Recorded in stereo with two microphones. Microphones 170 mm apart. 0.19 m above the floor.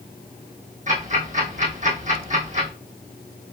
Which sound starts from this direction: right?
Ticking, at 0.9 s.